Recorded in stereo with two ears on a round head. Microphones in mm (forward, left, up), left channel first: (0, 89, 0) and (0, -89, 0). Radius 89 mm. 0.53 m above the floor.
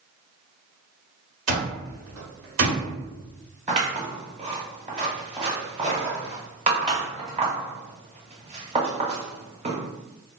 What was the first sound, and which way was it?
An alarm clock, 75° right (ahead or behind).